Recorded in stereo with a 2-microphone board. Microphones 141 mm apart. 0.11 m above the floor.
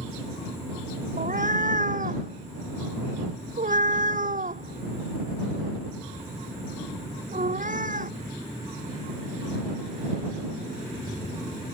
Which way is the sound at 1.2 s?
75° right (ahead or behind).